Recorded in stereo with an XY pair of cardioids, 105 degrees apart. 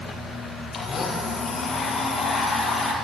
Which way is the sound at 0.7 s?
40° left.